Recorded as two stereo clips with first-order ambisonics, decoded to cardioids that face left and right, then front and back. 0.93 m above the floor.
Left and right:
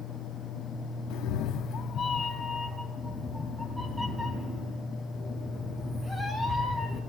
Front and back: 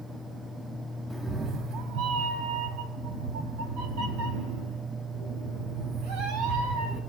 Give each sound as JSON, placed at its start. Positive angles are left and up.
{"t": 1.1, "sound": "a cat meowing", "azimuth_deg": 95, "distance_m": 0.5}